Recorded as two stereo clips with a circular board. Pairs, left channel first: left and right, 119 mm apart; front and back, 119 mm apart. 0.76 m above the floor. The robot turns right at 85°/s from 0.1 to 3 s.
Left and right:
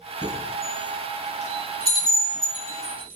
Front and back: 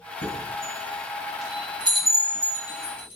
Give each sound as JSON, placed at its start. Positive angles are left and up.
{"t": 0.2, "sound": "a chime", "azimuth_deg": -10, "distance_m": 9.0}